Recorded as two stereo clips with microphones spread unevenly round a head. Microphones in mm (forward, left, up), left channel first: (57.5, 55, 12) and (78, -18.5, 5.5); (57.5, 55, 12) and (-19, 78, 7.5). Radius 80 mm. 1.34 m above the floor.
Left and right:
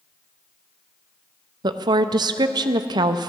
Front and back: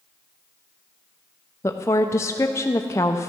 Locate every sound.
1.6 s a woman speaking: 80° right, 0.6 m